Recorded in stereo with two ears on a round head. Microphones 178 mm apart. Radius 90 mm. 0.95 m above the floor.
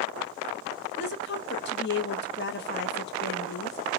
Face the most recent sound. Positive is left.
turn(degrees=55)  # may be behind; listen again after turning